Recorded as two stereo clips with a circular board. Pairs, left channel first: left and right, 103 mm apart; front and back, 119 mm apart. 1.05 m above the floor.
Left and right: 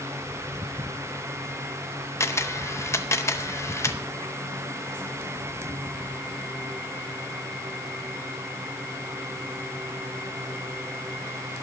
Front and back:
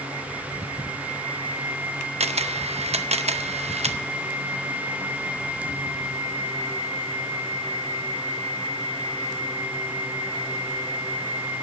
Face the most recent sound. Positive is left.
turn(degrees=150)